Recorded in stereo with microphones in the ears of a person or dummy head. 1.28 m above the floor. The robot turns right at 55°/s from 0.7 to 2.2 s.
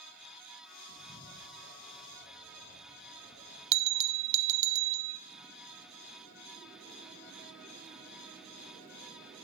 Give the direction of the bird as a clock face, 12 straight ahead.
5 o'clock.